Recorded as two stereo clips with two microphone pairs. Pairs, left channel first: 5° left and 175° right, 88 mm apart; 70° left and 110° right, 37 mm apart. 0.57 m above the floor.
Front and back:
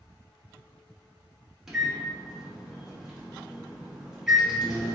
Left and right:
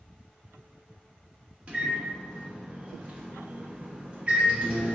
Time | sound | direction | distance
1.7 | a microwave | 90° right | 0.8 m